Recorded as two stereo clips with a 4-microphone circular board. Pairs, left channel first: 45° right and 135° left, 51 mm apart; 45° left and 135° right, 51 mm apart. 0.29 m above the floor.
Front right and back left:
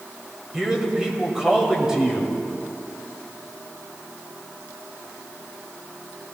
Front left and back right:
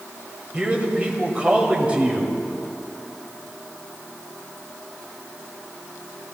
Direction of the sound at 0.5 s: 165° right.